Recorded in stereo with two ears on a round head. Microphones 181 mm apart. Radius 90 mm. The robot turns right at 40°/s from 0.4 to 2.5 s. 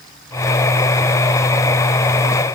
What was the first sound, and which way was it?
Only background noise.